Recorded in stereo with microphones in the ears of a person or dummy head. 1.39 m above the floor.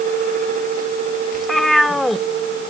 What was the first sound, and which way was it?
A cat meowing, centre (ahead or behind).